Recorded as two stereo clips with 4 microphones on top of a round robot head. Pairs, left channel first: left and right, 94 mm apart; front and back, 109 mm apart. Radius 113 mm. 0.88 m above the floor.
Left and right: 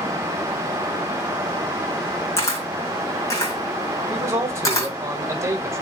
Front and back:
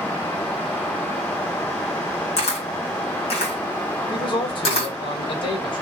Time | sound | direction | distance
2.4 | a camera shutter | 30° left | 2 m
4.1 | a man speaking | 35° right | 1.5 m